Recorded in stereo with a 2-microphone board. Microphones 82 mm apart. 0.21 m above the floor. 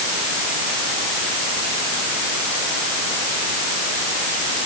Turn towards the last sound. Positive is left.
No sound to turn to.